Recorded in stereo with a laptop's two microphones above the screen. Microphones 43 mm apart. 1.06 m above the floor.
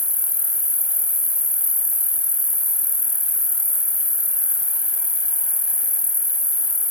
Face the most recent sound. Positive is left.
turn(degrees=35)  # may be behind; listen again after turning